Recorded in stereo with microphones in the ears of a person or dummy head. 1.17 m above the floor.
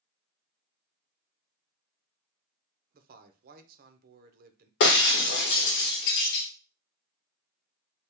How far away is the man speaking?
About 0.7 m.